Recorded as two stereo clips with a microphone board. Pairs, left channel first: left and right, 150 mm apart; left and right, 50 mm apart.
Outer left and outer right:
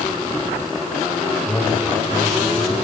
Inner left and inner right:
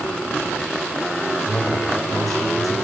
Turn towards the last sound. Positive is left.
turn(degrees=0)  # may be behind; listen again after turning